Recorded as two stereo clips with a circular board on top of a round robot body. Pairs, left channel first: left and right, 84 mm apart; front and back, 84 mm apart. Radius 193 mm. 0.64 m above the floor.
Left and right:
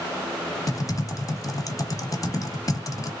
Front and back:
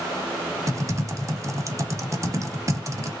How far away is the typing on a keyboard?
About 1.0 m.